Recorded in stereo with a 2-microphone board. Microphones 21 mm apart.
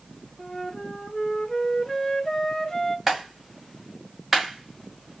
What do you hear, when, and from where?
0.4 s a flute: 20° left (ahead or behind), 0.6 m
3.1 s a clap: 5° right (ahead or behind), 1.9 m